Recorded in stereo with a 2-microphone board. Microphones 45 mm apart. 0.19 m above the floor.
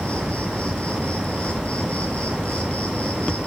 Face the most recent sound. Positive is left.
turn(degrees=30)  # may be behind; listen again after turning